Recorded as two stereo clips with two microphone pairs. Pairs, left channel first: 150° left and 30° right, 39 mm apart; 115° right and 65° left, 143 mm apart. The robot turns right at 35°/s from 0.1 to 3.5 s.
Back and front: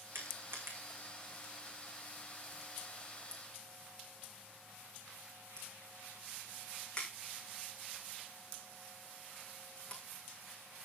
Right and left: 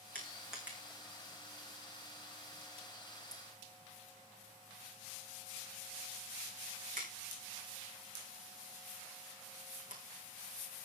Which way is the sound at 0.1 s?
35° right.